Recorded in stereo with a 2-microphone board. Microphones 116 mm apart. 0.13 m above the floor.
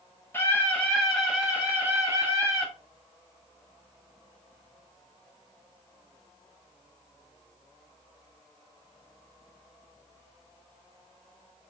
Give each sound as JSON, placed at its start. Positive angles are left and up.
{"t": 0.3, "sound": "a scream", "side_deg": 15, "distance_m": 1.3}